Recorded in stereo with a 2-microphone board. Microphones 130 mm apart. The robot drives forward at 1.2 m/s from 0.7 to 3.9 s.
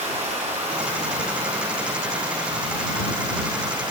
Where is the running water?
55° right (ahead or behind), 7 m; by 3.9 s 35° right (ahead or behind), 9.5 m.